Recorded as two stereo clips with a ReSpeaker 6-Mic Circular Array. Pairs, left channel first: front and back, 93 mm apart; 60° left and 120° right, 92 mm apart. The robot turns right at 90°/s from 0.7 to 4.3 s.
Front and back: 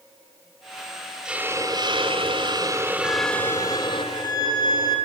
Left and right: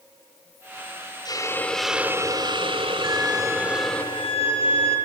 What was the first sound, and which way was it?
A hiss, 100° left.